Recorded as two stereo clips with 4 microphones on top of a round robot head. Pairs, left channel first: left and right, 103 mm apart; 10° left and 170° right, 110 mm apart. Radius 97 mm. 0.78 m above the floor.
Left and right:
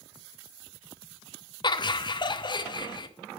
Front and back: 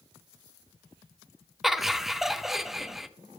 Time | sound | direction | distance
1.6 | laughter | 100° left | 0.8 m